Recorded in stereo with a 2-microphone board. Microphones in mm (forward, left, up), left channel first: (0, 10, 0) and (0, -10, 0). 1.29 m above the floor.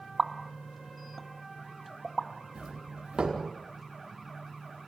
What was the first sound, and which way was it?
A pop, 15° left (ahead or behind).